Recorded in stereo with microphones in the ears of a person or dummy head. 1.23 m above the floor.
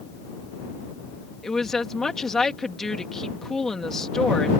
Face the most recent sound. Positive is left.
turn(degrees=0)  # may be behind; listen again after turning